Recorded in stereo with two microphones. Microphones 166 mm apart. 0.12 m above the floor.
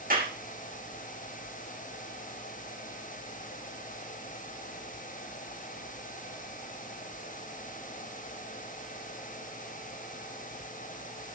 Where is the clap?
60° right (ahead or behind), 6 m.